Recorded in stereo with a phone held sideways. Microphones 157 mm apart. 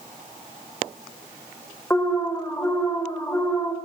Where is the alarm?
15° left (ahead or behind), 4.5 m.